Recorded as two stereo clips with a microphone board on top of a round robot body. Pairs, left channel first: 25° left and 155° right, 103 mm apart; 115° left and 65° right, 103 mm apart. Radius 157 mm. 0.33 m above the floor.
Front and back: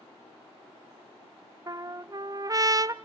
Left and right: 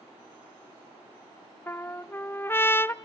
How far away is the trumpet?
About 0.9 m.